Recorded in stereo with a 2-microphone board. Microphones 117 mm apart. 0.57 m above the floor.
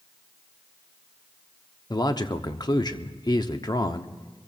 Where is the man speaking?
35° left (ahead or behind), 0.8 m.